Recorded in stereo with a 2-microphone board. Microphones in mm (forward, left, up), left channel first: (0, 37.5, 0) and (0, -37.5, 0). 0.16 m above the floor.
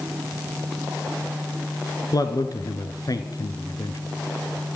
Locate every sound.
2.1 s a man speaking: 55° left (ahead or behind), 2 m